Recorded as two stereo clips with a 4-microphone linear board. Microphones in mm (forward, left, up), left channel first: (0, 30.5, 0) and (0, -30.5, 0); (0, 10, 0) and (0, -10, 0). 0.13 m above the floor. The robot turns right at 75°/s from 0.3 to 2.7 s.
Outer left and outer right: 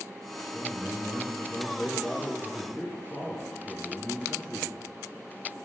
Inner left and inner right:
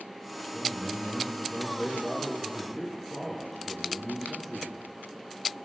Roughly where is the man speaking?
Centre.